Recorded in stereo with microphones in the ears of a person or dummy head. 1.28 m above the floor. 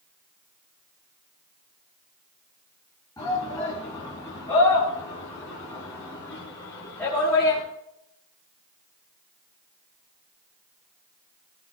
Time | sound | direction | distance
3.2 | a shout | 20° left (ahead or behind) | 8.5 m